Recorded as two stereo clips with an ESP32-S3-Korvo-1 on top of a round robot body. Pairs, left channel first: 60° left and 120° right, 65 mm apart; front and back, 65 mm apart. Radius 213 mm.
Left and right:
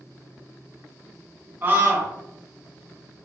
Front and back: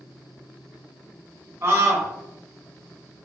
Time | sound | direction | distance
1.6 | a scream | 165° right | 0.9 m